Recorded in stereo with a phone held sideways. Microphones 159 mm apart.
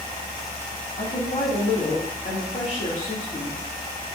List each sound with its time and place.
1.0 s a woman speaking: 50° left (ahead or behind), 2.5 m